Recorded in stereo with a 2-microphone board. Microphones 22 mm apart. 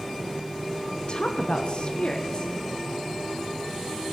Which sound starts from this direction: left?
A woman speaking, at 1.1 s.